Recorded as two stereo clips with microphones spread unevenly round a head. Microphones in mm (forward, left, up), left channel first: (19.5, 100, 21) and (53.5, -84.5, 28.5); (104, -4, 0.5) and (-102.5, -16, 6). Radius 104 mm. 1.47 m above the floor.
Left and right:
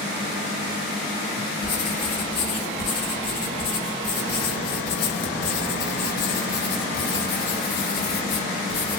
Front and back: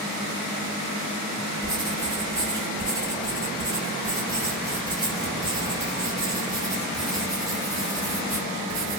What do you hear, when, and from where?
1.6 s writing: 110° left, 1.1 m